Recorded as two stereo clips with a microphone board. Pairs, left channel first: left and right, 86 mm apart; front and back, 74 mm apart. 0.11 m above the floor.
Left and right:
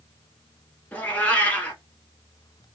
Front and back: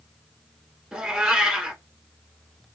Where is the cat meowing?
115° left, 0.7 m.